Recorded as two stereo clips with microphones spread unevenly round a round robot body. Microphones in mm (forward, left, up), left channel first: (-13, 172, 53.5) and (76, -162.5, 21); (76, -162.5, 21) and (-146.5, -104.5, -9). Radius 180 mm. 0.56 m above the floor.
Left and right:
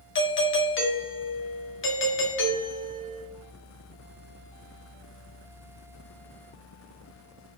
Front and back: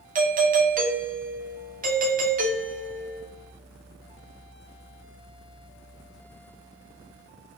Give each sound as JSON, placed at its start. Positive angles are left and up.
{"t": 0.1, "sound": "a doorbell", "azimuth_deg": 150, "distance_m": 1.4}